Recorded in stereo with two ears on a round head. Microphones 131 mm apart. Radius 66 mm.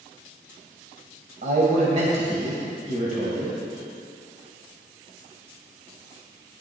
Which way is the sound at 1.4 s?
50° right (ahead or behind).